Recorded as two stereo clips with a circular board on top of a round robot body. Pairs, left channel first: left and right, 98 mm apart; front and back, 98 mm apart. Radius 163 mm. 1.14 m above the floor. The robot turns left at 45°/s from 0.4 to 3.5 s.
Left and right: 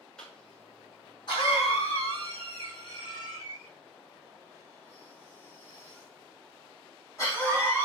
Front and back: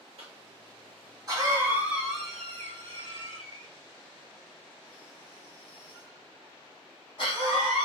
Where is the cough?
170° left, 1.7 m; by 7.9 s 30° left, 1.7 m.